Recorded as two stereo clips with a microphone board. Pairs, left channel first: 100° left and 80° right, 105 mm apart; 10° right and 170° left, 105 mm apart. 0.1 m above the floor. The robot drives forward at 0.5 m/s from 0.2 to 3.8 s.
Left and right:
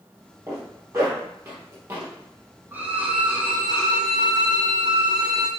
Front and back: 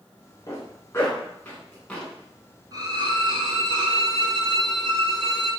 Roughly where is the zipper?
Ahead right.